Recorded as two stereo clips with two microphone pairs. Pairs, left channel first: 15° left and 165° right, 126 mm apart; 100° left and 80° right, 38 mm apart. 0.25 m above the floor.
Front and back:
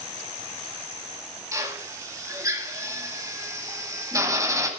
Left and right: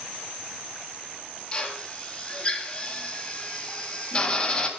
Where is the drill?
145° left, 1.7 m.